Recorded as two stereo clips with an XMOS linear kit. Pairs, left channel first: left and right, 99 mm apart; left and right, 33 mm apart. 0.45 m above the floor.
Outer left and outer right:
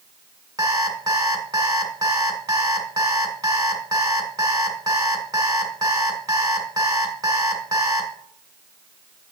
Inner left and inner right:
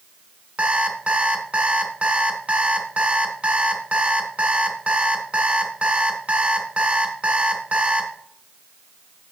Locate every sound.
0.6 s an alarm clock: 35° right (ahead or behind), 1.7 m